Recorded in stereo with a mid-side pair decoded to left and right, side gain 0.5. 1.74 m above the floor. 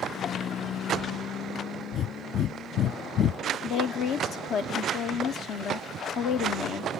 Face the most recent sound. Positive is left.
turn(degrees=65)